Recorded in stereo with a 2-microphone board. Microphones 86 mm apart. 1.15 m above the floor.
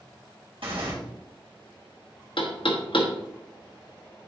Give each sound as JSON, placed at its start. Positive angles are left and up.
{"t": 0.6, "sound": "tearing paper", "side_deg": -75, "distance_m": 3.0}
{"t": 2.4, "sound": "knocking", "side_deg": 75, "distance_m": 1.1}